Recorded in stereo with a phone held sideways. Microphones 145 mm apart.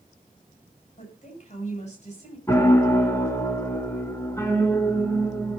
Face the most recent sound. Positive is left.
turn(degrees=20)  # may be behind; listen again after turning